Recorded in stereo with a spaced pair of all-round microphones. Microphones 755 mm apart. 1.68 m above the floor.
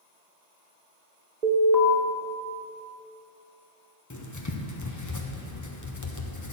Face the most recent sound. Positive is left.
turn(degrees=25)  # may be behind; listen again after turning